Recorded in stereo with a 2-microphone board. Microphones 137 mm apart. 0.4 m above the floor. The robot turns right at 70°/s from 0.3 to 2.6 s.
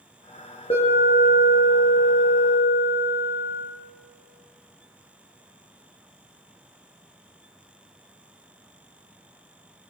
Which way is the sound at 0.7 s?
45° left.